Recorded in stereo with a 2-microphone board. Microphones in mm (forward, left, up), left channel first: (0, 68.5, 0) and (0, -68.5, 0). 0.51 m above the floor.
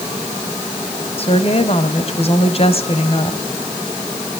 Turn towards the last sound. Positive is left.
turn(degrees=45)  # may be behind; listen again after turning